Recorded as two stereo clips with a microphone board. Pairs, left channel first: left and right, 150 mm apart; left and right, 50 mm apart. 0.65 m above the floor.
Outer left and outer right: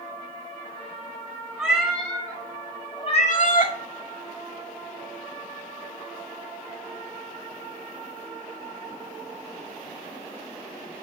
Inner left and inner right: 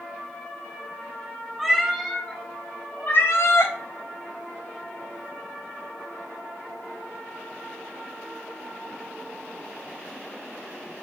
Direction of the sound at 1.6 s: 5° right (ahead or behind).